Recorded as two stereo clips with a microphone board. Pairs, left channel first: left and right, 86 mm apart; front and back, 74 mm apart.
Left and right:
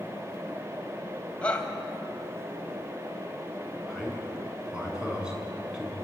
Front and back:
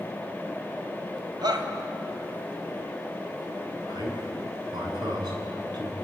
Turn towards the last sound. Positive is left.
turn(degrees=-170)